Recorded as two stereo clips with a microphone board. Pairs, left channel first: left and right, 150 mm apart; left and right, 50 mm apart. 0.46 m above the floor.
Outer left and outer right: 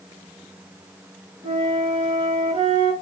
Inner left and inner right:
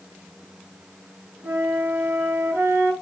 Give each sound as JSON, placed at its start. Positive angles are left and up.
{"t": 1.4, "sound": "a flute", "side_deg": -40, "distance_m": 3.5}